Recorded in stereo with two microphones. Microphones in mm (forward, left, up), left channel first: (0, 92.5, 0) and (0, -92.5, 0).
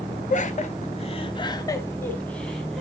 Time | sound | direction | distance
0.3 | laughter | 40° left (ahead or behind) | 1.2 m